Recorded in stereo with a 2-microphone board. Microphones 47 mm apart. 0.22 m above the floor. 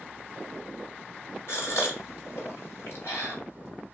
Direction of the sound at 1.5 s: 60° left (ahead or behind).